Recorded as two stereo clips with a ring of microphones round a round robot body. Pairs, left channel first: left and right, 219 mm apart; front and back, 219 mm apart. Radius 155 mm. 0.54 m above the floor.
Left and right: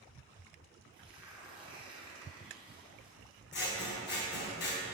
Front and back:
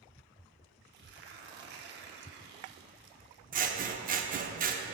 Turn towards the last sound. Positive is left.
turn(degrees=130)